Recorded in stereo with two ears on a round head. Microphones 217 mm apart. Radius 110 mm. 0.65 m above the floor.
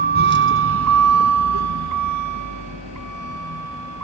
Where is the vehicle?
40° right (ahead or behind); by 4.0 s 60° right (ahead or behind).